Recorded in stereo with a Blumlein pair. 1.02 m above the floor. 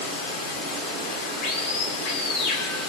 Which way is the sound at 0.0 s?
40° left.